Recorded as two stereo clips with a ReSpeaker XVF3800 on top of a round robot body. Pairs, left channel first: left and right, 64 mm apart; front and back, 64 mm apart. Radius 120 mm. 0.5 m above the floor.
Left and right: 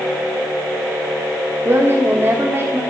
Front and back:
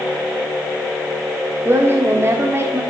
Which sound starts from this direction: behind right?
A woman speaking, at 1.6 s.